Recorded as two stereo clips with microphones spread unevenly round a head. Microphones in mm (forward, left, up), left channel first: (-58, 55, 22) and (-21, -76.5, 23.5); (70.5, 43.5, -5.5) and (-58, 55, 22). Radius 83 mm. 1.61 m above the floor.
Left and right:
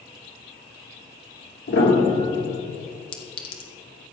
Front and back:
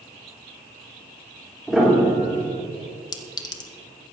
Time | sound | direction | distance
1.7 | a piano | 90° left | 2.5 m
3.1 | a clink | 55° left | 1.1 m